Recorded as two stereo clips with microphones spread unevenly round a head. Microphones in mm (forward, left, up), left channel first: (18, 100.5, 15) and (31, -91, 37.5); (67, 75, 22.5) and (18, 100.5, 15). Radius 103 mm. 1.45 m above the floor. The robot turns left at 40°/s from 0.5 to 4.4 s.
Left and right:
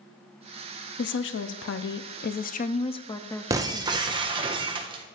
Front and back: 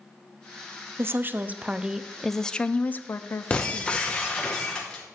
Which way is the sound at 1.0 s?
115° left.